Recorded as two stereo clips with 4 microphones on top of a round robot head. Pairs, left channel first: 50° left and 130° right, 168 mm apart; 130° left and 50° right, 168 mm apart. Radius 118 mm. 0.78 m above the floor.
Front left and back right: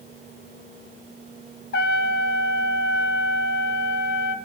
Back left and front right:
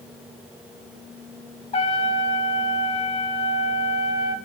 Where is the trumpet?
75° left, 0.7 m.